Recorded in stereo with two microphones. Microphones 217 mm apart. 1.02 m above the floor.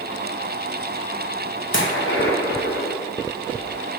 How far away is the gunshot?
About 0.9 m.